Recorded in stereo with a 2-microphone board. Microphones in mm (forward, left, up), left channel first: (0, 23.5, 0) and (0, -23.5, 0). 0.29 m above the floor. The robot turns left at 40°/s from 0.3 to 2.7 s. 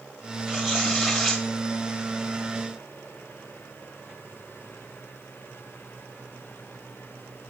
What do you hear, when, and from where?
0.5 s tearing paper: 15° right (ahead or behind), 1.6 m; by 1.4 s centre (ahead or behind), 1.6 m